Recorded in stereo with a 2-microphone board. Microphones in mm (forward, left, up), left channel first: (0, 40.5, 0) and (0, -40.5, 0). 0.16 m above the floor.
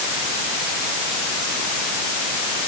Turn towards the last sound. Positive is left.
No sound to turn to.